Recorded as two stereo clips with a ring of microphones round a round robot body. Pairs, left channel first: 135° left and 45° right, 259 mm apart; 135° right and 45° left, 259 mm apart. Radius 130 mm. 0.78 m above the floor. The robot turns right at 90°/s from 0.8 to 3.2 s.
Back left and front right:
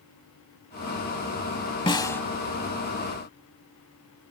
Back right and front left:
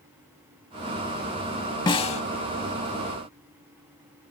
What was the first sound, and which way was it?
A snare drum, straight behind.